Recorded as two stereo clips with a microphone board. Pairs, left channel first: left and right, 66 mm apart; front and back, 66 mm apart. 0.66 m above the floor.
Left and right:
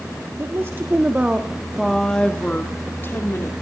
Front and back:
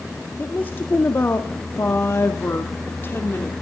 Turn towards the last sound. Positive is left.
turn(degrees=50)